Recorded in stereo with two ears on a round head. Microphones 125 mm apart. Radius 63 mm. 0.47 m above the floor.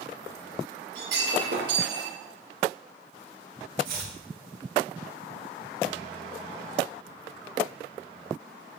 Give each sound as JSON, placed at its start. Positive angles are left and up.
{"t": 0.9, "sound": "breaking glass", "side_deg": -85, "distance_m": 5.0}
{"t": 3.8, "sound": "chopping", "side_deg": -75, "distance_m": 5.5}